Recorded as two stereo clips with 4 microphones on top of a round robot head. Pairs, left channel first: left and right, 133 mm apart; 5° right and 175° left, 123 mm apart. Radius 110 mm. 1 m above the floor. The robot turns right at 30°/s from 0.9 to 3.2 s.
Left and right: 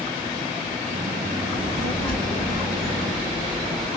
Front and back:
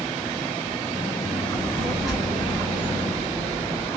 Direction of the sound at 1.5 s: 70° left.